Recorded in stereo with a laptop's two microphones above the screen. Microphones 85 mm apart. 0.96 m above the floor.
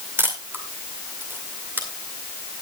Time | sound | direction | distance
0.2 | a camera shutter | 25° right (ahead or behind) | 2 m